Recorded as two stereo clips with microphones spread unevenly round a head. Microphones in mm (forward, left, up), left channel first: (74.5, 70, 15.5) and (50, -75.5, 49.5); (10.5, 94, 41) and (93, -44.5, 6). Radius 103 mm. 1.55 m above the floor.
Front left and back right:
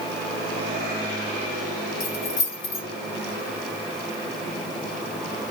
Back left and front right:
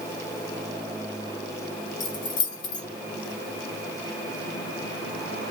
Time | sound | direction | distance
2.0 | keys jangling | 120° left | 1.2 m